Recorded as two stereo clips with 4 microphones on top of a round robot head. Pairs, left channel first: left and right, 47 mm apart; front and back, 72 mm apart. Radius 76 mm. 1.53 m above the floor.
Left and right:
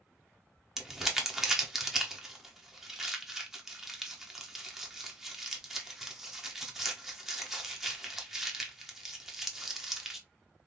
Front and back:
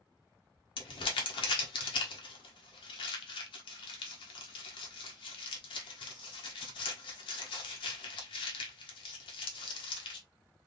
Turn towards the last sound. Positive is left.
turn(degrees=-10)